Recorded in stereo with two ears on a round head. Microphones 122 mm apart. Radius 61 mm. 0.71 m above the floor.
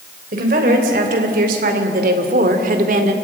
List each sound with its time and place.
0.3 s a woman speaking: 65° right (ahead or behind), 3.5 m; by 3.1 s 60° right (ahead or behind), 2 m